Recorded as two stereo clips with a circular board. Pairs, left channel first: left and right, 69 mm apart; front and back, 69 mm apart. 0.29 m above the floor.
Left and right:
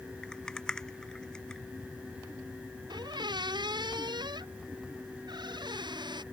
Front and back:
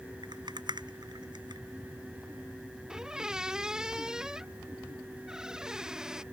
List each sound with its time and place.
0.2 s a rattle: 170° left
2.9 s a squeak: 100° right